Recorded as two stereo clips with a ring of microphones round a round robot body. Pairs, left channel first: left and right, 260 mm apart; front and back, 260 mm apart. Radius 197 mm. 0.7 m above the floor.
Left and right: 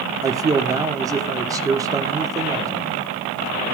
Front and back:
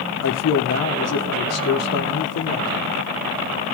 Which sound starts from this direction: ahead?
A man speaking, at 0.2 s.